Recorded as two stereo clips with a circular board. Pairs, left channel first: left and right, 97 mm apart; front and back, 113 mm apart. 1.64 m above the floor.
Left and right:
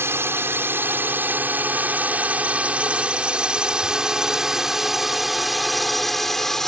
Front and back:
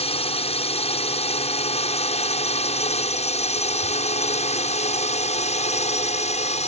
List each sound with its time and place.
0.0 s a drone: 25° right; by 6.7 s 5° left